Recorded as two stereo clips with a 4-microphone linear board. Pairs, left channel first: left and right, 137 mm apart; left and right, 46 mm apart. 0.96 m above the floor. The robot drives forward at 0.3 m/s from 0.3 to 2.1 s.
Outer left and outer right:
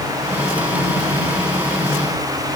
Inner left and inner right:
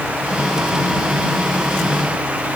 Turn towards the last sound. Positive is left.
No sound to turn to.